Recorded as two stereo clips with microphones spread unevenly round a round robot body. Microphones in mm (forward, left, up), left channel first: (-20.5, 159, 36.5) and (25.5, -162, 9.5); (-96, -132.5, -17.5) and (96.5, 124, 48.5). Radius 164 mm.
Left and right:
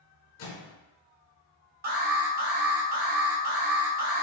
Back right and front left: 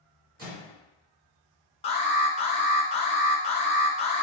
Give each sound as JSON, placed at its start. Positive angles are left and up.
{"t": 0.4, "sound": "a microwave", "azimuth_deg": 120, "distance_m": 2.0}
{"t": 1.8, "sound": "an alarm", "azimuth_deg": -100, "distance_m": 1.1}